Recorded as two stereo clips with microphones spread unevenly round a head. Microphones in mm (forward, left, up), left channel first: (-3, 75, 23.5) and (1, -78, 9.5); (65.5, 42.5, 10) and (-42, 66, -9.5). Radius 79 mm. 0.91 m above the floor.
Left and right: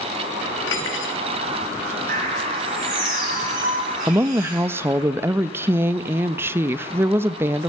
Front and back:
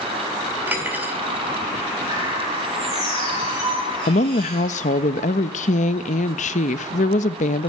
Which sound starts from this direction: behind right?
A bird, at 2.1 s.